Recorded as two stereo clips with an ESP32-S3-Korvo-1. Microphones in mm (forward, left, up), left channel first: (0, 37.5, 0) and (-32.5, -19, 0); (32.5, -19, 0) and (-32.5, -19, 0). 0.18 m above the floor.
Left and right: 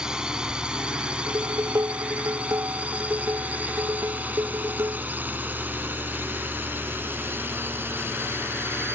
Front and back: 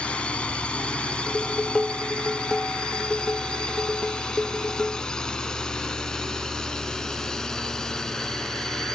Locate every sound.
0.0 s a drone: 50° right; by 8.9 s 80° right
1.3 s dishes clattering: 80° right